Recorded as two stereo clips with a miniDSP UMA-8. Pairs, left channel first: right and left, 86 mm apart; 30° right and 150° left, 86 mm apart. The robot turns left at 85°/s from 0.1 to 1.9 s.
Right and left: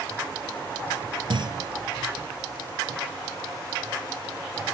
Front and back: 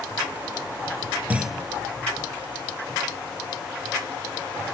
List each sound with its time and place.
1.3 s a clunk: 80° left; by 1.7 s 50° left